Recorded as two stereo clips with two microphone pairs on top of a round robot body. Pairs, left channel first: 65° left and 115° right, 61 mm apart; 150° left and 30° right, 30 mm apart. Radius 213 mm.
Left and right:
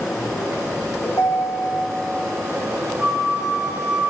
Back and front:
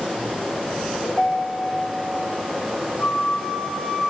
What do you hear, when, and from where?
1.1 s a ringtone: 105° left, 1.0 m
3.0 s a flute: 160° left, 1.3 m